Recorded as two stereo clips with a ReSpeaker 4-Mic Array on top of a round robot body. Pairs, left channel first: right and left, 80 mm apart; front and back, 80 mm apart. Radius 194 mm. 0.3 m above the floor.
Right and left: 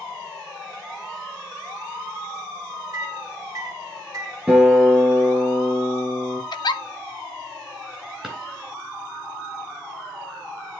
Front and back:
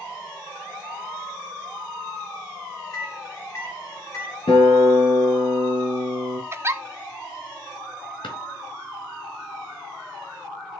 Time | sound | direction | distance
2.9 | a microwave | 50° left | 3.5 m
4.5 | a guitar | 10° left | 4.5 m
6.5 | a giggle | 120° right | 0.7 m
8.2 | a drawer | 10° left | 4 m